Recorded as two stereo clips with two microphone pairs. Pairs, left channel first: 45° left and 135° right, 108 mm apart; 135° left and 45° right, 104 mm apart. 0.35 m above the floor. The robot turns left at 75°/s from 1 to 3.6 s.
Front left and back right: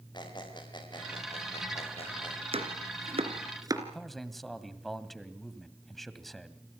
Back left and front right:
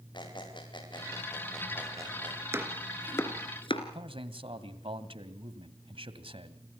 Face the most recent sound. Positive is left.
turn(degrees=-40)